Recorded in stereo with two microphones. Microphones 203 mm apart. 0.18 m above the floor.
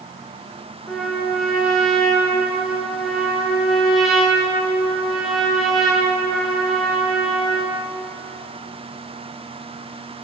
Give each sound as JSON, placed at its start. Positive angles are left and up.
{"t": 0.9, "sound": "a trumpet", "side_deg": 0, "distance_m": 1.9}